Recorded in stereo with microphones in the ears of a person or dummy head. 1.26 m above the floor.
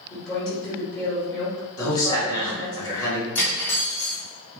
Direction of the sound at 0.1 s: 5° right (ahead or behind).